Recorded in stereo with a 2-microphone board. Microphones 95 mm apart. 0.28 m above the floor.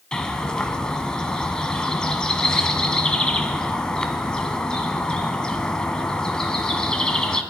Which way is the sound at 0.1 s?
10° left (ahead or behind).